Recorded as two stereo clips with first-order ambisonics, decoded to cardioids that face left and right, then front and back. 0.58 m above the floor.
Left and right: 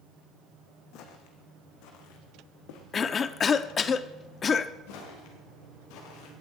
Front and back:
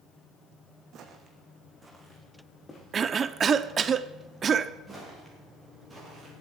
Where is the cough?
130° left, 0.7 m.